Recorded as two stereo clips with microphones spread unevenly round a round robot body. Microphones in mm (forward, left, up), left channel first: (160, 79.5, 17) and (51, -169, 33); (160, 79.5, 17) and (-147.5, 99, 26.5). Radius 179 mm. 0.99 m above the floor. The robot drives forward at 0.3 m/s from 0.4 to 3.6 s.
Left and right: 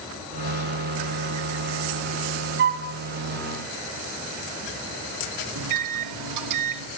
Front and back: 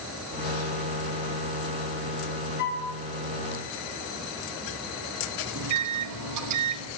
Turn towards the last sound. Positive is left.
turn(degrees=-140)